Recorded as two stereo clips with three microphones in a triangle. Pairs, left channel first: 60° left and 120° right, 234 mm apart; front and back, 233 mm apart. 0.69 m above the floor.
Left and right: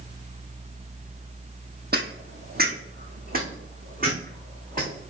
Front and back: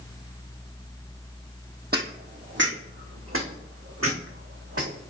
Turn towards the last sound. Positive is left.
turn(degrees=-170)